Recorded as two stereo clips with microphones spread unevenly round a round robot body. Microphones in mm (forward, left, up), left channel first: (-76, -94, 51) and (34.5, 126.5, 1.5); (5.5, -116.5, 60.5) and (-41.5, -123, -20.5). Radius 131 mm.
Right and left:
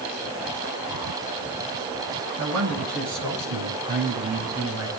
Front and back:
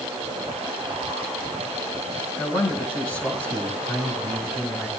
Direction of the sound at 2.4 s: 45° left.